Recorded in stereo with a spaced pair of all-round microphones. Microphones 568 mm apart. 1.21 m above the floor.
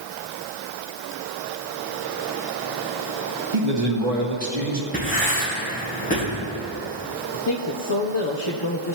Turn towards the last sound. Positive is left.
turn(degrees=45)  # may be behind; listen again after turning